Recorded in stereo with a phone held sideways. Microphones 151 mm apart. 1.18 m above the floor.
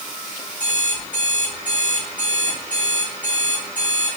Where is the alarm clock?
70° left (ahead or behind), 4.5 m.